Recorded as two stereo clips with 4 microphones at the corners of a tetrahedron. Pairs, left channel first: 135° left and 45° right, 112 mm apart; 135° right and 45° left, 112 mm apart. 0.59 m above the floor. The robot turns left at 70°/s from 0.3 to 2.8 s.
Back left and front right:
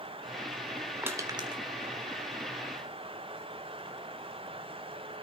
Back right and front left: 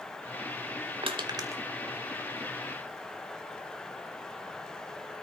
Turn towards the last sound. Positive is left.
turn(degrees=-100)